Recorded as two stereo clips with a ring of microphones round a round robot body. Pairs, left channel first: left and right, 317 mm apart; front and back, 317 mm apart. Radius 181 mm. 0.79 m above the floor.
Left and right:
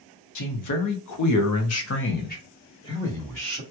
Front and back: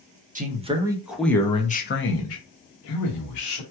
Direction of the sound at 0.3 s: 115° left.